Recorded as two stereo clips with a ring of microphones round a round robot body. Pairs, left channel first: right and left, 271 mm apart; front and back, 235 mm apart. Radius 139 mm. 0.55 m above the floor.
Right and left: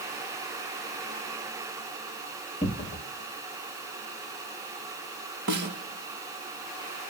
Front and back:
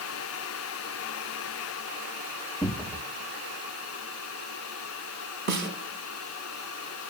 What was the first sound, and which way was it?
A cupboard door, 80° right.